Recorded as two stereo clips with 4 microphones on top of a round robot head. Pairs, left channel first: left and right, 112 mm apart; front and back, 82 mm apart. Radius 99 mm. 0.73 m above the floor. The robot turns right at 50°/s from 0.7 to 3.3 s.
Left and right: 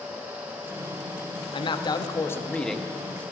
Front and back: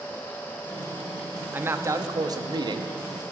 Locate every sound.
1.5 s a man speaking: 115° left, 1.3 m; by 3.2 s 160° right, 1.3 m